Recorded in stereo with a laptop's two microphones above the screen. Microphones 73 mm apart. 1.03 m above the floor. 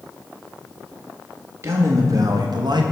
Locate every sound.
1.6 s a man speaking: 35° right (ahead or behind), 1.2 m; by 2.8 s 65° right (ahead or behind), 0.8 m